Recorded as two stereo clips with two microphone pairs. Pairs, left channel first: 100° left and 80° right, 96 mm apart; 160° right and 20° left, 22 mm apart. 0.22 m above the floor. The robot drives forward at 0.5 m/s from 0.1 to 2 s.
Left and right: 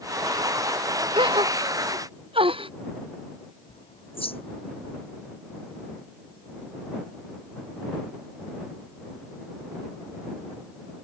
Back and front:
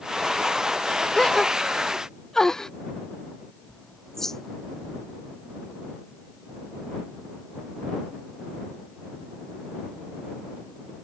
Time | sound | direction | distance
1.1 | a gasp | 100° right | ?
3.7 | a bird | 120° left | ?